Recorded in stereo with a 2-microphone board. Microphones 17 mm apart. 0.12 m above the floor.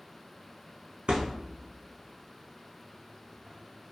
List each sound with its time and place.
1.1 s a thud: 85° right, 0.6 m